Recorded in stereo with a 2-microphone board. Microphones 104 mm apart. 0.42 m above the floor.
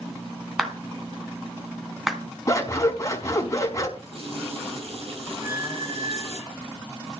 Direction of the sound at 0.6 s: 5° right (ahead or behind).